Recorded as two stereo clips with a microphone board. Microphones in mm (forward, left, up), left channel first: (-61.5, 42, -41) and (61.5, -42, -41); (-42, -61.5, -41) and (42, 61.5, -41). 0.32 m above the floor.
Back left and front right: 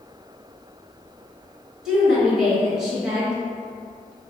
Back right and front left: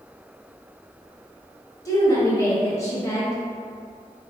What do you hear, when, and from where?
1.9 s a woman speaking: 115° right, 1.1 m